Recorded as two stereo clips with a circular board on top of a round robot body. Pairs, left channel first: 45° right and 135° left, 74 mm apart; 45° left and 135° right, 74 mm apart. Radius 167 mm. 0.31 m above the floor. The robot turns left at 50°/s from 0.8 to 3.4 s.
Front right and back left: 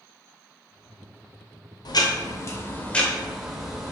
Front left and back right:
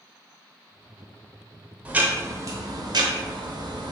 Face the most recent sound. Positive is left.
turn(degrees=-140)